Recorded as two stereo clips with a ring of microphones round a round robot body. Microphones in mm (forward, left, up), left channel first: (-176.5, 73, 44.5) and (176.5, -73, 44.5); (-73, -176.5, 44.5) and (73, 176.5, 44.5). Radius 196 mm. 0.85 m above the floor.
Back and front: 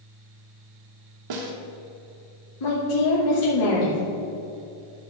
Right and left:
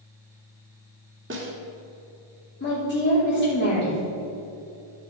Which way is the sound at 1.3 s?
10° left.